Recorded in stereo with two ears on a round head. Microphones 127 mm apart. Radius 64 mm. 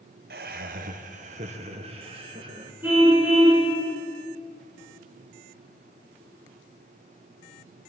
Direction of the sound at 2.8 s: 15° right (ahead or behind).